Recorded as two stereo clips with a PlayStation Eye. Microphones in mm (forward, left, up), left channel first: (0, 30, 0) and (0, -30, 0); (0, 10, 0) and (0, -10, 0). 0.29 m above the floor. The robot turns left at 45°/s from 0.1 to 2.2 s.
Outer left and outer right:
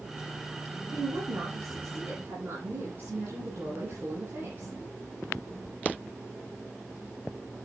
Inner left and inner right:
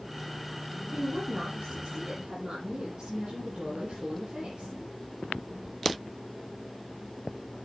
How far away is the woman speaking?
About 8 m.